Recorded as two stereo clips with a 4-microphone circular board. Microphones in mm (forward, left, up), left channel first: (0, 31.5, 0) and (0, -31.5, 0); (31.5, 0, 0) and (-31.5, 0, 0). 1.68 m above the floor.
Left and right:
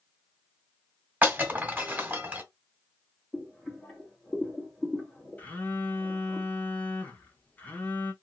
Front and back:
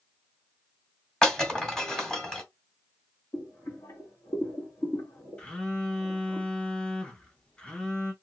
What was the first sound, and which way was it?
Breaking glass, 65° right.